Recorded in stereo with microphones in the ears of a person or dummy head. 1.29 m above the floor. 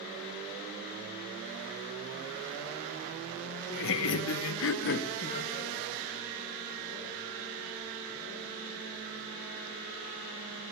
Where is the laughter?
60° left (ahead or behind), 1.0 m; by 5.7 s 25° left (ahead or behind), 1.1 m.